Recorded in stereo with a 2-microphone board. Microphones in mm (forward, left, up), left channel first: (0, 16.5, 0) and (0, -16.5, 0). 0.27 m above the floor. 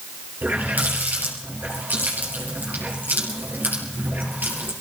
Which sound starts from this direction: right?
A running tap, at 0.4 s.